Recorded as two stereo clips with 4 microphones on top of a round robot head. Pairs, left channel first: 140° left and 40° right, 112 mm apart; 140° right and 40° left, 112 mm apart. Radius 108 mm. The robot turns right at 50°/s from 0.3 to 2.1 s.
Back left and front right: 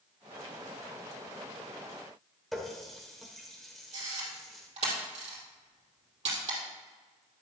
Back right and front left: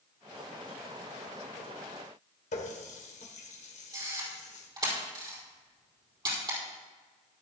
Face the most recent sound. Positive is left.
turn(degrees=-15)